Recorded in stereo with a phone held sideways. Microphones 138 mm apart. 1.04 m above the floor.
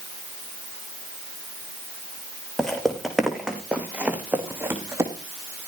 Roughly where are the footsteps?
Centre.